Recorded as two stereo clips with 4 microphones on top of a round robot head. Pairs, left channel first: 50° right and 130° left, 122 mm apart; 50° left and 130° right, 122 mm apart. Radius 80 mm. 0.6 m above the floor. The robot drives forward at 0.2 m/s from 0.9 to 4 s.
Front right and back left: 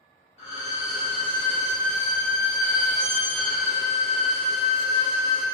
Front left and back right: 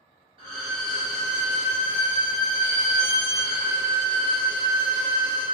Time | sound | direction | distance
0.4 | a violin | 85° right | 0.6 m